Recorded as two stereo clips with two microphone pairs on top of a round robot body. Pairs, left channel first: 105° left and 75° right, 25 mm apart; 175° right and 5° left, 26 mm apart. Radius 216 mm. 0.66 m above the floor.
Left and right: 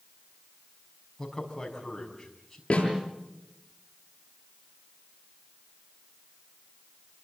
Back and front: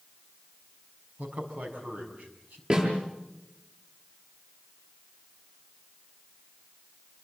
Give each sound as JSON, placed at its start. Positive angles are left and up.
{"t": 1.2, "sound": "a man speaking", "azimuth_deg": 30, "distance_m": 6.0}
{"t": 2.7, "sound": "a snare drum", "azimuth_deg": 60, "distance_m": 8.5}